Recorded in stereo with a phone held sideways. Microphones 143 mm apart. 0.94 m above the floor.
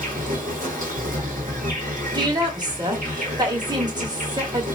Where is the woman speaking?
30° right (ahead or behind), 1.5 m.